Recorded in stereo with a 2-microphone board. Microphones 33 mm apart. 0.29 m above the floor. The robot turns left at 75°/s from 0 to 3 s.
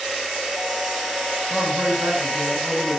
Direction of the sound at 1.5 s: 30° right.